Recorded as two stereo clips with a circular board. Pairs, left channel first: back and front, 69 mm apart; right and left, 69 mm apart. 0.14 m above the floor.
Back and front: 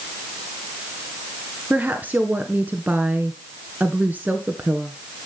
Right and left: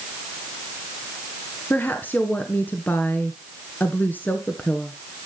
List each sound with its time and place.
1.7 s a woman speaking: 50° right, 1.3 m